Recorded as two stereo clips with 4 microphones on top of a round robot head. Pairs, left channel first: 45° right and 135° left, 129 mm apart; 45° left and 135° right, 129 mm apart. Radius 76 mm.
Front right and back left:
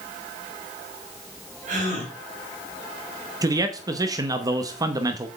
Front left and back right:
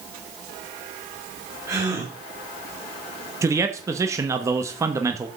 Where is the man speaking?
175° left, 1.0 m.